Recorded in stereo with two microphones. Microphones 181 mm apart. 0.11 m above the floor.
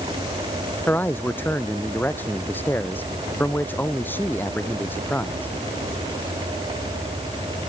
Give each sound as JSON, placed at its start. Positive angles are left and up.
{"t": 0.9, "sound": "a man speaking", "side_deg": 10}